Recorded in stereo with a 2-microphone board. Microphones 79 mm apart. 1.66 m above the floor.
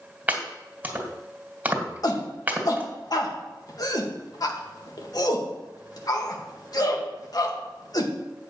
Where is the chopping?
20° right (ahead or behind), 1.9 m.